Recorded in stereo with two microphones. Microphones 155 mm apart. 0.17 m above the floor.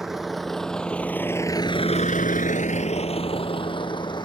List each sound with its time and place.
0.0 s a vehicle: 5° right (ahead or behind); by 4.2 s 30° left (ahead or behind)